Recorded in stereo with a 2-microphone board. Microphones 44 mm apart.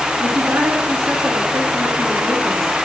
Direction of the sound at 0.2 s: 45° right (ahead or behind).